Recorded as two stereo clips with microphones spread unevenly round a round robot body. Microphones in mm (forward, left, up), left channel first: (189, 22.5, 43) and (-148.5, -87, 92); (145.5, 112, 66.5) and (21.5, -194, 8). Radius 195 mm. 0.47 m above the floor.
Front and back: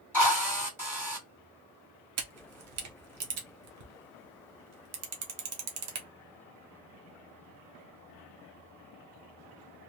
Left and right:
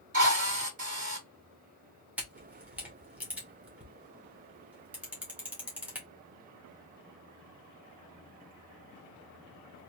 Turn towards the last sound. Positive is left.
turn(degrees=180)